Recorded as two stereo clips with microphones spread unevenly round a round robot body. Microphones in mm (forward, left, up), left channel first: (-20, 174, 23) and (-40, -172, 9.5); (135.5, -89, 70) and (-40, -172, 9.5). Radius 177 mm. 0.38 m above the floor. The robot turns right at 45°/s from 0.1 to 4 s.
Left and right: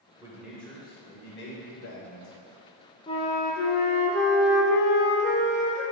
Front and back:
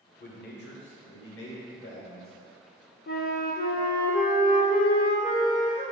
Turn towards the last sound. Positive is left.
turn(degrees=65)